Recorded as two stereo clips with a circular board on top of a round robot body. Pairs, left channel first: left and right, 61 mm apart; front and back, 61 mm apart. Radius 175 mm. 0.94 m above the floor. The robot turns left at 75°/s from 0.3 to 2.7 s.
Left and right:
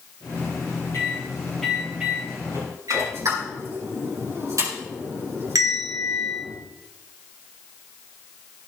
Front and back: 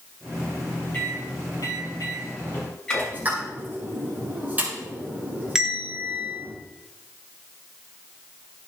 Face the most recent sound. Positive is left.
turn(degrees=-100)